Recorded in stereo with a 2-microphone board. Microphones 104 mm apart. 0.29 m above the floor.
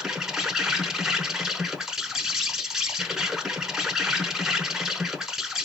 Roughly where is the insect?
Centre.